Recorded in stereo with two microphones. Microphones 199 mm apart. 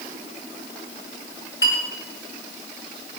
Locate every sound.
1.6 s a clink: 75° left (ahead or behind), 6 m